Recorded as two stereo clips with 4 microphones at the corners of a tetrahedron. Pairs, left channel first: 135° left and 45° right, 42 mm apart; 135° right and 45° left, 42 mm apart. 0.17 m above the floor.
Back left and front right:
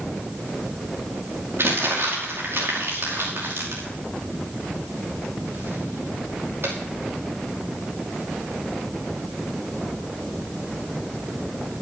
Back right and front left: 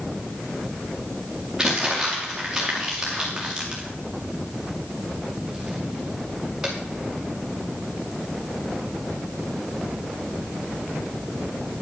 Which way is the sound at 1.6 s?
35° right.